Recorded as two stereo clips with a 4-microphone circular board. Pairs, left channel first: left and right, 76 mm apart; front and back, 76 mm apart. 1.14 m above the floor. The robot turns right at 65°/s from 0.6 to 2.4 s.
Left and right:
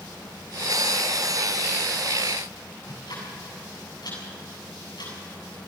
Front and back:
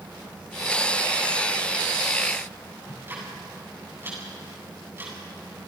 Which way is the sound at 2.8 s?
120° left.